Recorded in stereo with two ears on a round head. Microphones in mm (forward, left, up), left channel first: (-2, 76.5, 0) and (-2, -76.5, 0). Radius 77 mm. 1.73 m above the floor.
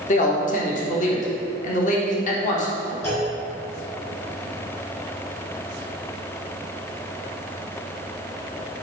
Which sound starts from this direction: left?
A man speaking, at 0.1 s.